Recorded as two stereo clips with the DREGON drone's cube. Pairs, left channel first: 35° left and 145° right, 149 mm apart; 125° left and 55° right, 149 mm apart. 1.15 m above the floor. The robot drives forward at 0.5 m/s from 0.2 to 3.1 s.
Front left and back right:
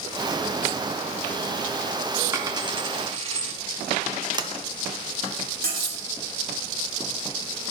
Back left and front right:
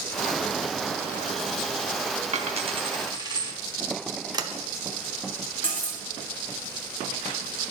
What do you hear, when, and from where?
2.3 s a dropped coin: 80° right, 0.8 m; by 3.5 s 115° right, 0.8 m
4.3 s a sliding door: 100° right, 0.6 m
5.6 s cutlery clinking: 155° right, 1.9 m